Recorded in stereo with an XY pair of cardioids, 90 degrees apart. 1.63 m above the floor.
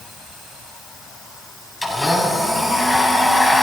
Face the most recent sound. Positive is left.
turn(degrees=5)